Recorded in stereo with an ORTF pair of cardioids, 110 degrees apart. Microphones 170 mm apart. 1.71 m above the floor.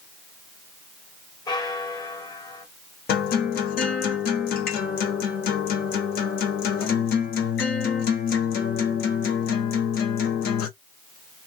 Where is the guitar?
65° left, 1.6 m.